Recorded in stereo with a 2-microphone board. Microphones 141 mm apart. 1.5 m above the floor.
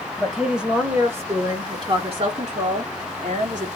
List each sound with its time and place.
0.2 s a woman speaking: 5° left (ahead or behind), 1.5 m; by 3.7 s 75° right (ahead or behind), 2 m